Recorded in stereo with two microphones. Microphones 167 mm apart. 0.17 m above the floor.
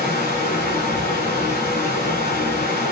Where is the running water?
65° left (ahead or behind), 1.2 m.